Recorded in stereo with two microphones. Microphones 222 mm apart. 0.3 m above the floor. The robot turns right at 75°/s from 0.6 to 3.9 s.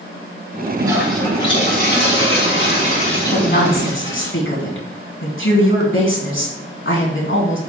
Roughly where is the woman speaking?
Ahead left.